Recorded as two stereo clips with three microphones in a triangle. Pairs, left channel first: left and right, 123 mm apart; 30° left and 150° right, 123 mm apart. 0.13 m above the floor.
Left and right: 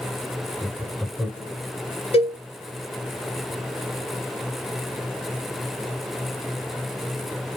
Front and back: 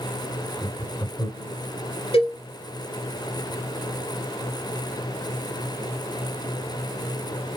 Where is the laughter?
Straight ahead, 1.3 m.